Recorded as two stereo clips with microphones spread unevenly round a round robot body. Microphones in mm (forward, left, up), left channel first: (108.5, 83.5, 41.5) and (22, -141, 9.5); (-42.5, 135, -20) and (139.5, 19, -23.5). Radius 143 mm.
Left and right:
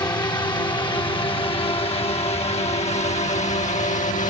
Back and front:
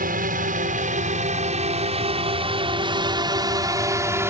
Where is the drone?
5° right; by 4.3 s 35° left.